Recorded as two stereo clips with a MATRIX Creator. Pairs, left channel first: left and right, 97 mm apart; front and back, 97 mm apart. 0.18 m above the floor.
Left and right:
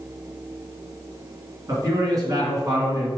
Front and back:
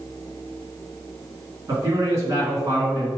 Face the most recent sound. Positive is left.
turn(degrees=-130)